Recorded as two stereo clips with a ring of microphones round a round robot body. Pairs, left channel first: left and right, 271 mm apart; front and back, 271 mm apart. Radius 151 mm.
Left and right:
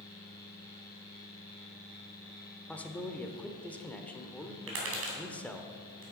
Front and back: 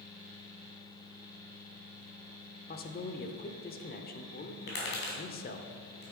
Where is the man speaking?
10° left, 1.0 m.